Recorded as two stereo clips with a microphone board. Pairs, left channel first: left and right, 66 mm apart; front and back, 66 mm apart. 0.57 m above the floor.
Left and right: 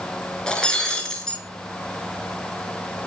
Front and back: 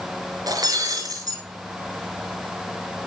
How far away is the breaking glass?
About 4.5 m.